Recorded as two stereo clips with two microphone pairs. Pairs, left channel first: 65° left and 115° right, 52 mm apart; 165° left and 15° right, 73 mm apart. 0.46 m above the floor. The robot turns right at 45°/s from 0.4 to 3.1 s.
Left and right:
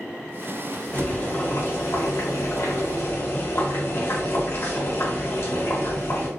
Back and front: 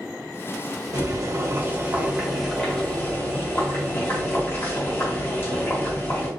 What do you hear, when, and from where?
0.9 s boiling: 5° left, 0.7 m; by 6.3 s 100° left, 0.7 m